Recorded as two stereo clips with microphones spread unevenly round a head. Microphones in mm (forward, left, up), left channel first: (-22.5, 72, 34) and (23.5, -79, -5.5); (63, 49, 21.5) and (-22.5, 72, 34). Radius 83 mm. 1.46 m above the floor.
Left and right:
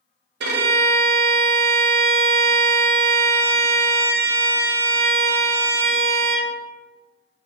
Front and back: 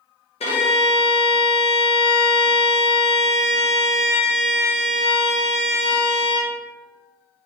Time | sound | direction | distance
0.4 | a violin | 45° right | 0.7 m